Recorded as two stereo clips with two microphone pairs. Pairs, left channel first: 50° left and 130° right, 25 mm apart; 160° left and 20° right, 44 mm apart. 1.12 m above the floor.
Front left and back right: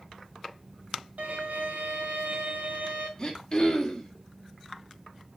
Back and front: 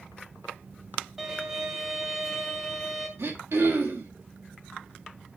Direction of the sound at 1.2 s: 100° right.